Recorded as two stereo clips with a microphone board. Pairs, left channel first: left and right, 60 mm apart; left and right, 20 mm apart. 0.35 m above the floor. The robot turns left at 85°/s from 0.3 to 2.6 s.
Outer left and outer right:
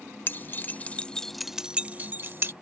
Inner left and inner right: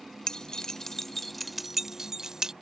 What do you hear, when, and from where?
0.3 s keys jangling: 35° left (ahead or behind); by 2.5 s 35° right (ahead or behind)